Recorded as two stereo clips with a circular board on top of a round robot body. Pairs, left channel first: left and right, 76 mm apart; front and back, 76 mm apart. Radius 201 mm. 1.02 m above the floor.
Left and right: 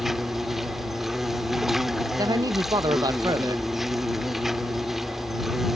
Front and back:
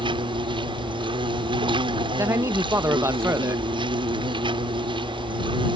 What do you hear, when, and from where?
0.0 s an insect: 175° right
2.2 s a man speaking: 125° right